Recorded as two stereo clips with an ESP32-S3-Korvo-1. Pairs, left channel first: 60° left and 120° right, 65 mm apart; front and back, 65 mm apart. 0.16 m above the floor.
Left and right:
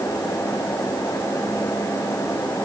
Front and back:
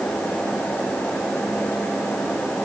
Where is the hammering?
No hammering in this recording.